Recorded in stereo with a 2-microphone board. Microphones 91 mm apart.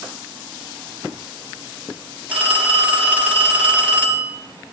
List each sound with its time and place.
2.3 s a phone ringing: 15° right (ahead or behind), 4.5 m